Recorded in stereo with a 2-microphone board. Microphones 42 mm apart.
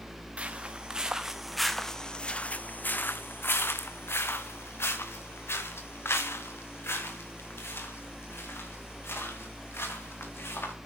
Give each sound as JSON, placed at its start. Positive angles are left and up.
{"t": 0.4, "sound": "footsteps", "side_deg": -30, "distance_m": 1.2}